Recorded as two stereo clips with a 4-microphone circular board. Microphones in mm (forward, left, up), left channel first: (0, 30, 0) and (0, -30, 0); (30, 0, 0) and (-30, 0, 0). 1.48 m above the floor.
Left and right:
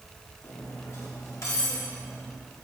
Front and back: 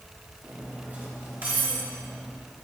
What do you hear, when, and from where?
0.4 s cutlery clinking: 120° left, 1.6 m